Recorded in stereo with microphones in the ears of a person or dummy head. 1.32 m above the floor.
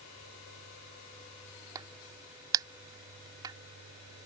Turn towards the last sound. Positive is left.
turn(degrees=-20)  # may be behind; listen again after turning